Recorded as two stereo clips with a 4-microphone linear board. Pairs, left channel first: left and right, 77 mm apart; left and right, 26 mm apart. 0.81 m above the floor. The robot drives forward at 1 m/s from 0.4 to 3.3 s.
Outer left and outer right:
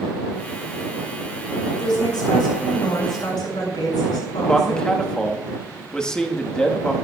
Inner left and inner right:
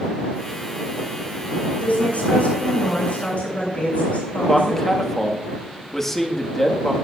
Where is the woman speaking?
80° left, 6.5 m; by 5.0 s 70° left (ahead or behind), 6.5 m.